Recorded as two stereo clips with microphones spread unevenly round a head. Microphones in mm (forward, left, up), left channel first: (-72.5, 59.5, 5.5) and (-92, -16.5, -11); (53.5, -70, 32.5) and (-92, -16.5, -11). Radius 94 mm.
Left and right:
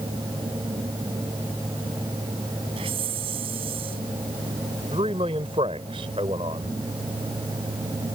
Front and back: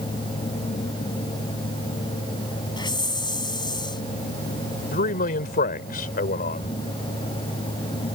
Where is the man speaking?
45° right.